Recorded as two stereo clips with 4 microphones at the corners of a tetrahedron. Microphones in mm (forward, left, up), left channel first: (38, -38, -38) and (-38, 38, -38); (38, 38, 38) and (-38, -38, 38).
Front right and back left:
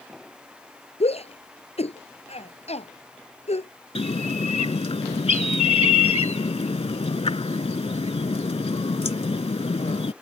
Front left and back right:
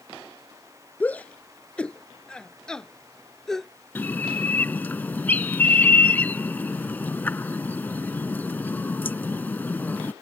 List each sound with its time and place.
1.0 s a shout: 30° right; by 3.7 s 40° right
4.0 s a bird: 25° right